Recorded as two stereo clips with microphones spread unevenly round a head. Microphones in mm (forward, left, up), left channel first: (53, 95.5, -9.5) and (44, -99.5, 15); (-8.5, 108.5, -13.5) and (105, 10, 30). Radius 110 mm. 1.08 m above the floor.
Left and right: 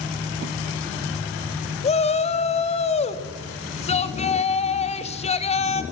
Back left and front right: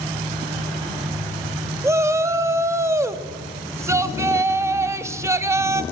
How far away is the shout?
About 1.9 m.